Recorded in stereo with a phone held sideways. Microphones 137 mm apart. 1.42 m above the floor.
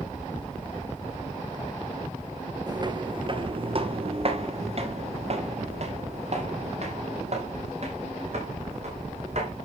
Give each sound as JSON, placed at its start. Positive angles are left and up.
{"t": 2.7, "sound": "footsteps", "side_deg": -30, "distance_m": 1.5}